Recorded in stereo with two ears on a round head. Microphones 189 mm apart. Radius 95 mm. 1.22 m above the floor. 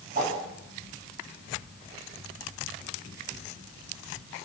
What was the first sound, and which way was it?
A whoosh, 40° right (ahead or behind).